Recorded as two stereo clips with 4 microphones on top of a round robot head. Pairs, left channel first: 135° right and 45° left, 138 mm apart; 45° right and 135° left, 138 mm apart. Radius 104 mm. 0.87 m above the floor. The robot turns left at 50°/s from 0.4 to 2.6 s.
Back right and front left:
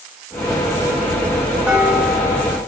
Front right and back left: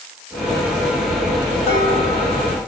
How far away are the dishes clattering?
About 4.5 m.